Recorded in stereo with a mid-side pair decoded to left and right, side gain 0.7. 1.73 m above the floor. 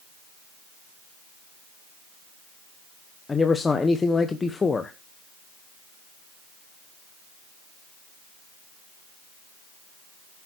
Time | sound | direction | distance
3.3 | a man speaking | 20° left | 1.2 m